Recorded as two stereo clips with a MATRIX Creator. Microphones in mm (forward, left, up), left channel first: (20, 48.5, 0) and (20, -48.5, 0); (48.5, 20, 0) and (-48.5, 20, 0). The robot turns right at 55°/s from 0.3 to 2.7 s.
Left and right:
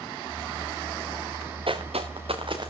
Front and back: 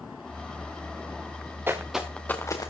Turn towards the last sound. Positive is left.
turn(degrees=-45)